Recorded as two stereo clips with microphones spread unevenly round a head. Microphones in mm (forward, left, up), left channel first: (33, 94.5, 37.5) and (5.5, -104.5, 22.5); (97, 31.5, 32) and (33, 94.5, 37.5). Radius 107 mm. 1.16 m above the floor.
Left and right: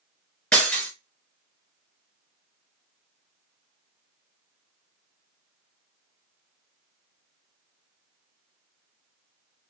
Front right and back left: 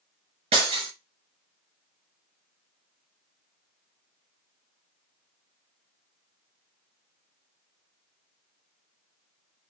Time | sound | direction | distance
0.5 | breaking glass | 165° left | 3.5 m